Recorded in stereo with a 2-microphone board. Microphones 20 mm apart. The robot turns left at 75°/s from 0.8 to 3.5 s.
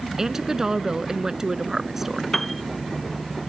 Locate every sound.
0.2 s a woman speaking: 55° right; by 2.2 s 165° right
2.3 s a piano: 15° left (ahead or behind); by 2.6 s 10° right (ahead or behind)